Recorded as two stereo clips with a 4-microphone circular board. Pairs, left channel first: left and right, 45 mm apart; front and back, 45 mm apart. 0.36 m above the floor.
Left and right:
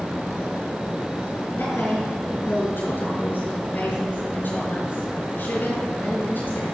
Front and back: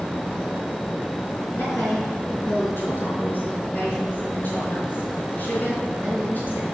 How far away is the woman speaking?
About 4 m.